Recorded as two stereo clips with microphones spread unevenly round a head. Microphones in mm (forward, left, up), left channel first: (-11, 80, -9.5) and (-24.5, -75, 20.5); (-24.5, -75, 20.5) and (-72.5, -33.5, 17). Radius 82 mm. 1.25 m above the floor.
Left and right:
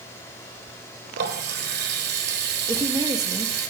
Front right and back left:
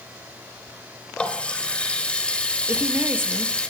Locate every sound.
1.2 s a running tap: 115° right, 4 m
2.7 s a woman speaking: 165° right, 2 m